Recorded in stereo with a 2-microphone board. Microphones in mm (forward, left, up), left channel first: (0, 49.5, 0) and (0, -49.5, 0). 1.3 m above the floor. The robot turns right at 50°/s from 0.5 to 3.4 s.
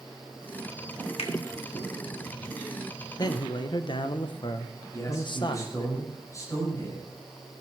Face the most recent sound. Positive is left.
turn(degrees=35)  # may be behind; listen again after turning